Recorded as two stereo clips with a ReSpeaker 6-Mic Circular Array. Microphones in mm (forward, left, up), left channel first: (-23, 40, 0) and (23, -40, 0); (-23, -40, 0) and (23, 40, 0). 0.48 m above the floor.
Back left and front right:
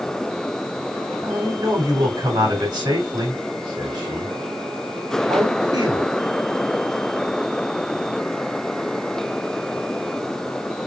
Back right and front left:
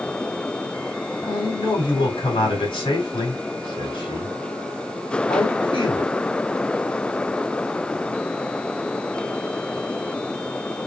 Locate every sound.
1.2 s a man speaking: 105° right, 3 m